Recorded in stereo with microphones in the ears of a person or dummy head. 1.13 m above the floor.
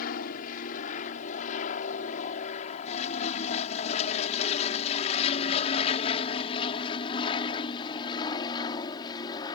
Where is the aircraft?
50° left (ahead or behind); by 9.6 s 25° left (ahead or behind).